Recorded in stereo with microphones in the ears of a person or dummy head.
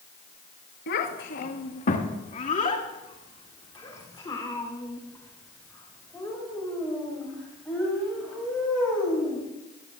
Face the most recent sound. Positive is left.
turn(degrees=5)  # may be behind; listen again after turning